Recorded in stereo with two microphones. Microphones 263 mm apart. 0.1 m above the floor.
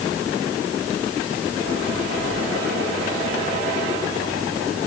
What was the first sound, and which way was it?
Only background noise.